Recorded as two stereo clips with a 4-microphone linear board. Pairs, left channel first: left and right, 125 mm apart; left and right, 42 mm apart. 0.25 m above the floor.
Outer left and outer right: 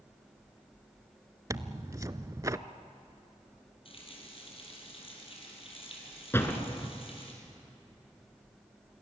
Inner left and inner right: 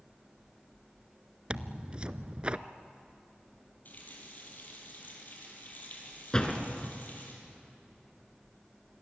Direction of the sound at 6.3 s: 20° left (ahead or behind).